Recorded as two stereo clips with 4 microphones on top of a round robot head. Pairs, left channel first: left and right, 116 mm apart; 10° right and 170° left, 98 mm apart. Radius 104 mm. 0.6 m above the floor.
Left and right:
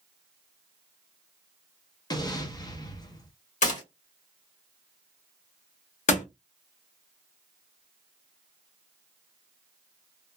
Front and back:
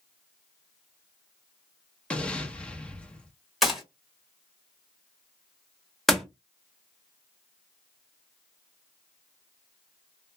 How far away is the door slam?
About 1.4 m.